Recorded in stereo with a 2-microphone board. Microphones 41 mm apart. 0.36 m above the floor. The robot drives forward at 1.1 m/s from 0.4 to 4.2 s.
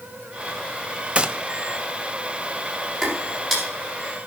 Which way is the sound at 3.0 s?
5° left (ahead or behind).